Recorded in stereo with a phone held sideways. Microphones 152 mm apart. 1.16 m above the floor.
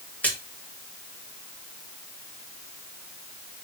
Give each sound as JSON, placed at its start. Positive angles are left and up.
{"t": 0.2, "sound": "a splash", "side_deg": 10, "distance_m": 1.9}